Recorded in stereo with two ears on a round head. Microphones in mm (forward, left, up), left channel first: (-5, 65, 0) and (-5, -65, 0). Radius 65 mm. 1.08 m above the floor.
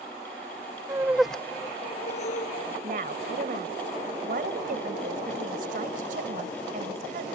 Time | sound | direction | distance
0.9 | laughter | 25° right (ahead or behind) | ?
2.8 | a woman speaking | 65° right (ahead or behind) | ?